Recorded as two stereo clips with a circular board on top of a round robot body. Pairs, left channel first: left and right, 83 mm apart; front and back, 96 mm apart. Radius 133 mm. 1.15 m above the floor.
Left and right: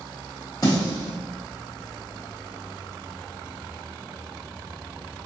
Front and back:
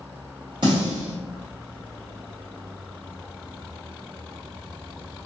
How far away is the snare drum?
About 0.5 m.